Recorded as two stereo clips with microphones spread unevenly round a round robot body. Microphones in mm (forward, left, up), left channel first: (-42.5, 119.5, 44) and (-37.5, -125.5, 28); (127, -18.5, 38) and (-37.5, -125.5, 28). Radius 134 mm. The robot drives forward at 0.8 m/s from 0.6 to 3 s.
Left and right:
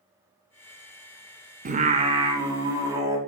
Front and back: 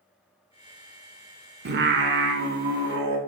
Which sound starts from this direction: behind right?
Singing, at 1.6 s.